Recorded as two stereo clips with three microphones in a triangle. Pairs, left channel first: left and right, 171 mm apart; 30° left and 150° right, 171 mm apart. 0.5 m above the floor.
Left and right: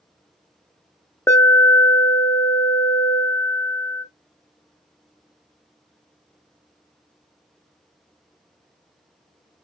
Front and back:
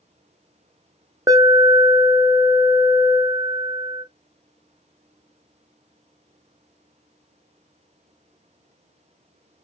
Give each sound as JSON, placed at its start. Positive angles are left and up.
{"t": 1.3, "sound": "an alarm", "azimuth_deg": 155, "distance_m": 0.8}